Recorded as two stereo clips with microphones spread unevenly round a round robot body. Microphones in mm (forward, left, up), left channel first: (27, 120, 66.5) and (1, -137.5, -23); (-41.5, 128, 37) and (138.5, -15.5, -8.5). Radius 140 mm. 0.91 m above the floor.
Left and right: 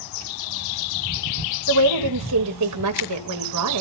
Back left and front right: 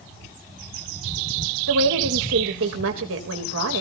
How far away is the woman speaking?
About 3.5 m.